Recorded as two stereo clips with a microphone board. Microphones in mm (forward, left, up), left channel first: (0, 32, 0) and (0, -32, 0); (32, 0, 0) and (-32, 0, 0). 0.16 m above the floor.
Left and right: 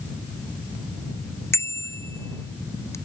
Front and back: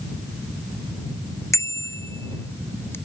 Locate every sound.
1.5 s a bicycle bell: 40° left; by 3.0 s 50° left